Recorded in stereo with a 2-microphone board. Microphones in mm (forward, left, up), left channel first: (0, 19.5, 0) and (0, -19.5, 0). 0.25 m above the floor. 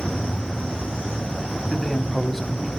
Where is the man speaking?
5° left (ahead or behind), 1.8 m.